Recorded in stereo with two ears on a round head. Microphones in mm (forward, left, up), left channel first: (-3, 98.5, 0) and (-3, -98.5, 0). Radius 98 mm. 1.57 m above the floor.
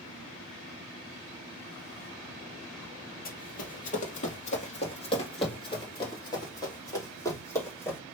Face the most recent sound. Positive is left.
turn(degrees=10)  # may be behind; listen again after turning